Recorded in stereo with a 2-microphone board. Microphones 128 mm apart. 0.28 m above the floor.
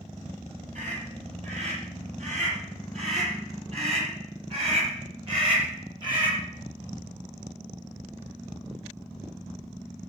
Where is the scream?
60° right (ahead or behind), 7.5 m; by 6.4 s 35° right (ahead or behind), 6 m.